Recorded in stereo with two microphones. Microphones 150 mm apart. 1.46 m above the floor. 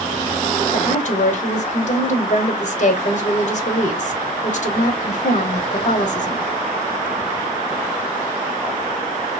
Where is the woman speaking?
55° left (ahead or behind), 0.9 m.